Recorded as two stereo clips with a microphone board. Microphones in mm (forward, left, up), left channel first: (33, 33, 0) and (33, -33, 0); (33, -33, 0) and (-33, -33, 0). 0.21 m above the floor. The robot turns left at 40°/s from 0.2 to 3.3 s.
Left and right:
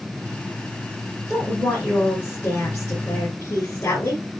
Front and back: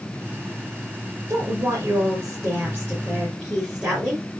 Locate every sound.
1.3 s a woman speaking: 170° right, 3 m; by 4.2 s 110° left, 3 m